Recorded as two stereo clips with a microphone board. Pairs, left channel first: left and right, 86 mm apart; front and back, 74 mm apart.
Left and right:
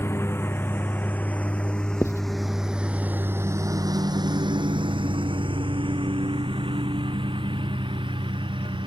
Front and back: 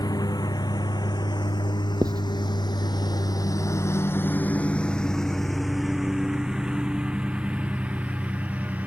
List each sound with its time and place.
0.0 s a lawn mower: 30° left; by 8.9 s 110° right
2.0 s writing: 150° left